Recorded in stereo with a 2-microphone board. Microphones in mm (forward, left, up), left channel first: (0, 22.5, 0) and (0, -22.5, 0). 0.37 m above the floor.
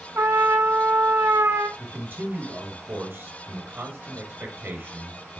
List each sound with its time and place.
0.1 s a trumpet: 85° right, 1.0 m
1.8 s a man speaking: 60° right (ahead or behind), 4.5 m